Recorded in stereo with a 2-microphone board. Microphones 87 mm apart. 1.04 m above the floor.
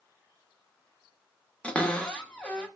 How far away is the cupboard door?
About 0.7 m.